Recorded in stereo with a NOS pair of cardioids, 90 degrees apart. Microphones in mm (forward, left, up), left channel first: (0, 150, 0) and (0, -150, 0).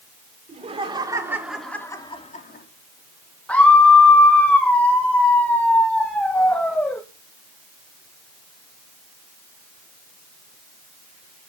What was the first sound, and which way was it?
Laughter, 20° right.